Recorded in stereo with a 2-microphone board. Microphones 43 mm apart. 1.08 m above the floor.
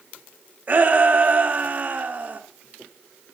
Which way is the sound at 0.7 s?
40° right (ahead or behind).